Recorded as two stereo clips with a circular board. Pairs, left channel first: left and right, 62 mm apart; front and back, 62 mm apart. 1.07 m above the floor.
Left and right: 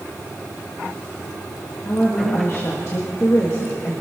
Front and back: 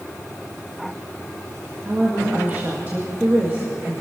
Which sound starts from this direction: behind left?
A woman speaking, at 1.9 s.